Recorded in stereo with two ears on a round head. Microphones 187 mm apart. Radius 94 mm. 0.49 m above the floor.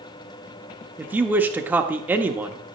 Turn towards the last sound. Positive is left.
turn(degrees=-5)  # may be behind; listen again after turning